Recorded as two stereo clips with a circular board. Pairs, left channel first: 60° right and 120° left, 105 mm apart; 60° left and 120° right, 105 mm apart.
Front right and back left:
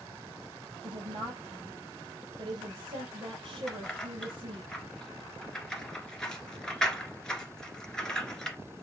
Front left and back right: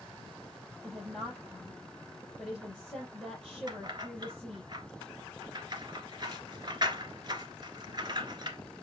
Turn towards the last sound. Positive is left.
turn(degrees=-140)